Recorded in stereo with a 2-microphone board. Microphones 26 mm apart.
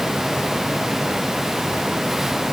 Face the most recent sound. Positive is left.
No sound to turn to.